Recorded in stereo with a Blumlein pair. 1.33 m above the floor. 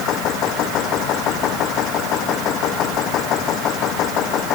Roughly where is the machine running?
Ahead left.